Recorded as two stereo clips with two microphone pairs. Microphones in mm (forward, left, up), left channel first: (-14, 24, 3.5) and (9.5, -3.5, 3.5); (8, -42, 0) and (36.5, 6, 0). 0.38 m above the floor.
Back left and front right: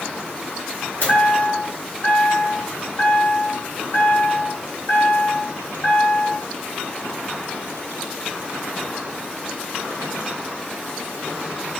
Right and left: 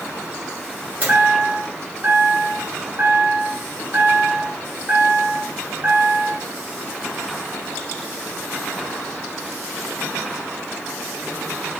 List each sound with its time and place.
1.0 s a chime: 110° left, 2 m